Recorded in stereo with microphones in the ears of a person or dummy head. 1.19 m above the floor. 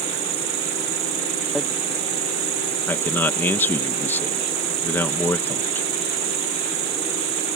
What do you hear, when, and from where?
0.0 s an insect: 55° right (ahead or behind)
1.6 s hammering: centre (ahead or behind)
2.9 s a man speaking: 10° left (ahead or behind)